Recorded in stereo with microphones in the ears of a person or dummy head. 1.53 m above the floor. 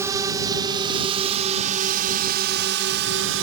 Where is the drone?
10° right (ahead or behind); by 3.4 s 60° right (ahead or behind).